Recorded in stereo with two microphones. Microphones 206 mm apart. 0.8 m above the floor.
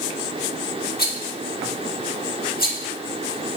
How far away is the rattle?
About 1.6 m.